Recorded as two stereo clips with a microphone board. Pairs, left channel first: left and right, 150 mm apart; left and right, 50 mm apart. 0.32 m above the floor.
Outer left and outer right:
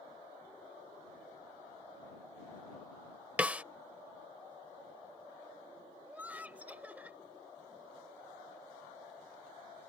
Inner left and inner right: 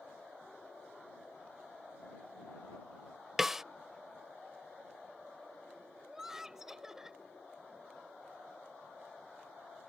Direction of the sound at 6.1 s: 10° right (ahead or behind).